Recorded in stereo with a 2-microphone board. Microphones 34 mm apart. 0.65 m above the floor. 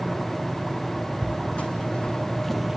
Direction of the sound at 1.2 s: 50° left (ahead or behind).